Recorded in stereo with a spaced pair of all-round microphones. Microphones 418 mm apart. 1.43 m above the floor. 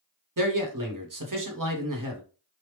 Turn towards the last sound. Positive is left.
turn(degrees=-45)  # may be behind; listen again after turning